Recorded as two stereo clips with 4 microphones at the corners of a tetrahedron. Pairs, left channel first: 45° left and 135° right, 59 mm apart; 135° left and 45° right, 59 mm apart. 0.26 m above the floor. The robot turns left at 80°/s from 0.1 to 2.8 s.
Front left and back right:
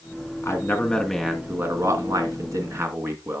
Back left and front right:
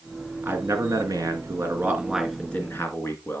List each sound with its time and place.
0.4 s a man speaking: 15° left, 3 m; by 3.4 s 175° right, 3 m